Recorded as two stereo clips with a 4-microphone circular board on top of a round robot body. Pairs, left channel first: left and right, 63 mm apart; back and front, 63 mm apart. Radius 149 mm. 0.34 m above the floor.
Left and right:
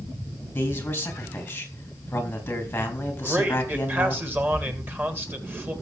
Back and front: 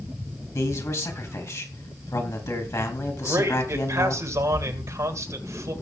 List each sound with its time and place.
0.6 s a man speaking: 150° left, 4 m
3.2 s a man speaking: 35° right, 3 m